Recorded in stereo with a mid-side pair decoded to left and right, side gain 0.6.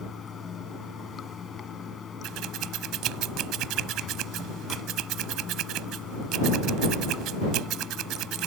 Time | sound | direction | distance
0.0 | running water | 35° left | ?
2.2 | scissors | 65° right | ?